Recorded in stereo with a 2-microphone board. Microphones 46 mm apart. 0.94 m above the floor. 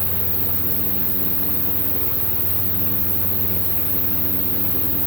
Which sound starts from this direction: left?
An insect, at 0.0 s.